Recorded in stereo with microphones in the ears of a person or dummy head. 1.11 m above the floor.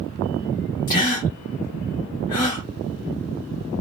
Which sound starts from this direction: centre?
A gasp, at 0.9 s.